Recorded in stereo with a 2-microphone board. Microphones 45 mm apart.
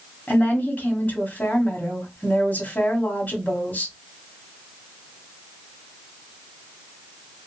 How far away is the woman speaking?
About 1.2 m.